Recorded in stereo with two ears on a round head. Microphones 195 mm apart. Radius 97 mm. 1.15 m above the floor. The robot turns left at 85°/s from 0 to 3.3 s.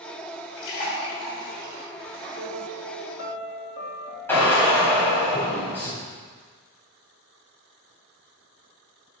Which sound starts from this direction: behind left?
A piano, at 2.4 s.